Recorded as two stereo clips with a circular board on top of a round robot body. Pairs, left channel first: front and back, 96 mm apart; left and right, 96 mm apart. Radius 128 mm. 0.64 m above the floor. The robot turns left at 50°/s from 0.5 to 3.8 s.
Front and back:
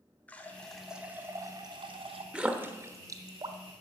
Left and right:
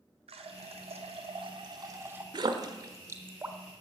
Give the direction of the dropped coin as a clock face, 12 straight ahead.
No dropped coin in this recording.